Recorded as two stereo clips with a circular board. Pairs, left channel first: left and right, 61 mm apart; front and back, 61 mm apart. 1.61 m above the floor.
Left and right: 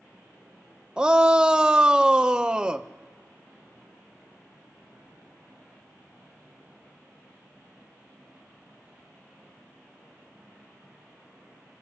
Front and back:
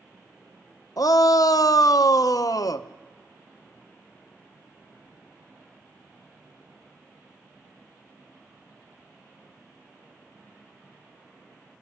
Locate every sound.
1.0 s a shout: 15° right, 0.8 m